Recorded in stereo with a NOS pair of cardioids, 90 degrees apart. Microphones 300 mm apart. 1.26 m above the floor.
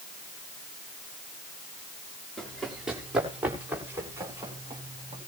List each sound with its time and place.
2.4 s running footsteps: straight ahead, 7 m; by 5.2 s 15° right, 9.5 m